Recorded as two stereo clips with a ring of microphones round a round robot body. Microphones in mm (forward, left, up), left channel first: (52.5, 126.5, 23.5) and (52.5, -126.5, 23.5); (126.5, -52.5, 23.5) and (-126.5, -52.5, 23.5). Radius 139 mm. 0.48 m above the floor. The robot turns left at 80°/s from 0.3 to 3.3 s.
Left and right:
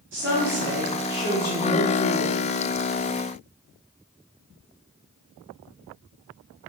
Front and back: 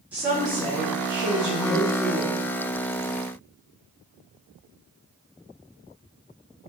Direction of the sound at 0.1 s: 100° right.